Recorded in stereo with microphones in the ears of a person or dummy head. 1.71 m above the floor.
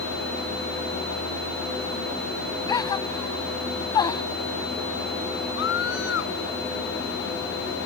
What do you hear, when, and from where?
2.7 s a gasp: 25° left (ahead or behind)
5.6 s a scream: 80° left